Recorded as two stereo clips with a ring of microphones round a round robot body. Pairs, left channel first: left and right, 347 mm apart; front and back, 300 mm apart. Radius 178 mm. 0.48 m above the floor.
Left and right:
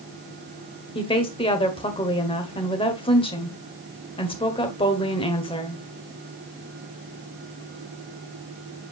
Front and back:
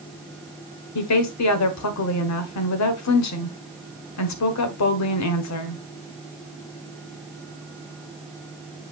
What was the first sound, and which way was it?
A woman speaking, 15° left.